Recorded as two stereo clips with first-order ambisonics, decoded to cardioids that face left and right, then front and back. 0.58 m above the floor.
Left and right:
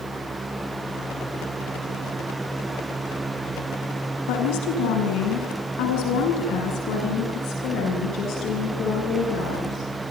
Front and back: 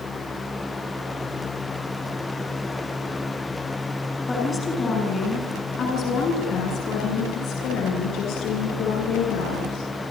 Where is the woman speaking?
80° left, 6.5 m; by 9.8 s 35° left, 11 m.